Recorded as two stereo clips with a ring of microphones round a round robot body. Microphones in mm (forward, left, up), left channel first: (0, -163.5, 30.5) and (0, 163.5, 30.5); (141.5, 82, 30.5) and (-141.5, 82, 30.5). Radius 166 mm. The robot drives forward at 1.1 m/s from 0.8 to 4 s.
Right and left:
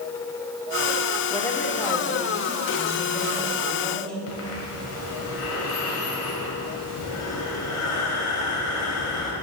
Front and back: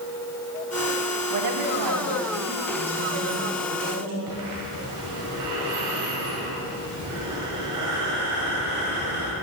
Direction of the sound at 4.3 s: 140° right.